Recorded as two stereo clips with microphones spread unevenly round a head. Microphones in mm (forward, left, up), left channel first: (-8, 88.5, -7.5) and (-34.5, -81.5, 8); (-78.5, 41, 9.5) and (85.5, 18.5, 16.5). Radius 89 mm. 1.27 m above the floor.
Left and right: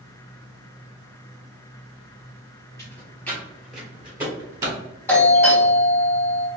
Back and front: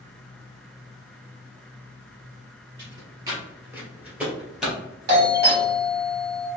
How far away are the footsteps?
About 1.4 m.